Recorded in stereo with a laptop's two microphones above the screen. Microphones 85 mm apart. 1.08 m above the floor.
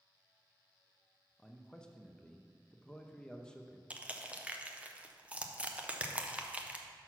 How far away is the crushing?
About 0.6 m.